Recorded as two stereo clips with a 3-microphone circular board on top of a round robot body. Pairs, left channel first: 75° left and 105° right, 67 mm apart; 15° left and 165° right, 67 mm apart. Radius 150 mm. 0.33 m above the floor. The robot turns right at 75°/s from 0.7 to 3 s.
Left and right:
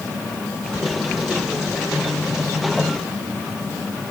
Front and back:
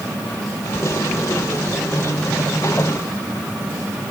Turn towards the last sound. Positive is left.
No sound to turn to.